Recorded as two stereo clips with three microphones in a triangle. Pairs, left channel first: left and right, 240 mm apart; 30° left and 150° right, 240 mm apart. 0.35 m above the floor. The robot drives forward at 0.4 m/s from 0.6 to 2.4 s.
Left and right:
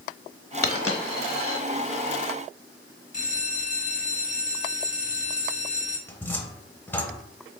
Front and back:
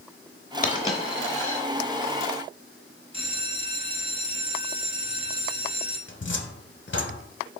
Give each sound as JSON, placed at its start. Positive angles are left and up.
{"t": 0.6, "sound": "a dropped coin", "azimuth_deg": 80, "distance_m": 0.8}
{"t": 3.1, "sound": "a bell", "azimuth_deg": 150, "distance_m": 0.7}
{"t": 6.1, "sound": "a cupboard door", "azimuth_deg": 10, "distance_m": 0.5}